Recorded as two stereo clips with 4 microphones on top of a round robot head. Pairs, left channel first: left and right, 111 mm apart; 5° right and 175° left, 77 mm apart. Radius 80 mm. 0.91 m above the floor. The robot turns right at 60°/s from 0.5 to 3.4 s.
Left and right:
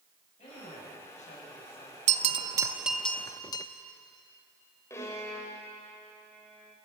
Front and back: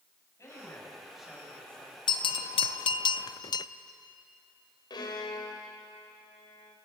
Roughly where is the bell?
Ahead right.